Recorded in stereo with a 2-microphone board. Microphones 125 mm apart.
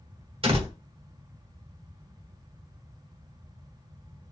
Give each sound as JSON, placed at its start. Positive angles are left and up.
{"t": 0.4, "sound": "a door slam", "side_deg": -45, "distance_m": 1.2}